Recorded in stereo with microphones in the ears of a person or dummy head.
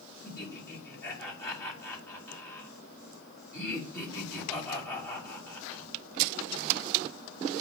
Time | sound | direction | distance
0.2 | laughter | 20° left (ahead or behind) | 3 m